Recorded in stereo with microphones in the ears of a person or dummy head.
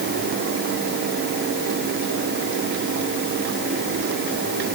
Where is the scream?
No scream in this recording.